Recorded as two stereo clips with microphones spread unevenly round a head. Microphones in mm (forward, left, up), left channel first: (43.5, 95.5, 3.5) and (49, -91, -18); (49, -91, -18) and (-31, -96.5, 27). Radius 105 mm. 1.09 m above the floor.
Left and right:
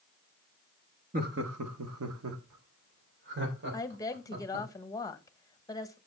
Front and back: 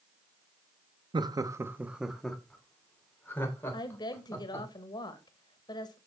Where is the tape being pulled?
No tape being pulled in this recording.